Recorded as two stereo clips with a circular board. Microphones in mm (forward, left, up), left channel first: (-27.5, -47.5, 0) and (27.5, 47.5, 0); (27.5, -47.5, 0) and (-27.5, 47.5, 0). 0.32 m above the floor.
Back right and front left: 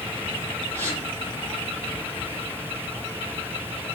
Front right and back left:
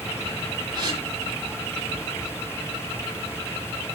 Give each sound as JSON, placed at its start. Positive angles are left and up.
{"t": 0.7, "sound": "a gasp", "azimuth_deg": 170, "distance_m": 9.5}